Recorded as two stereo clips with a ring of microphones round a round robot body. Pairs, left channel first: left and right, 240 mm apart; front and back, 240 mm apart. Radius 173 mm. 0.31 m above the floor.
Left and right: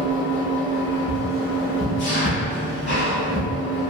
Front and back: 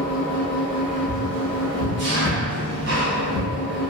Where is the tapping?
Straight ahead, 1.5 m.